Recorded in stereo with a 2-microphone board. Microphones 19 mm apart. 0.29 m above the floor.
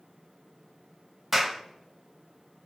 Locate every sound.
1.3 s a clap: 15° right (ahead or behind), 1.2 m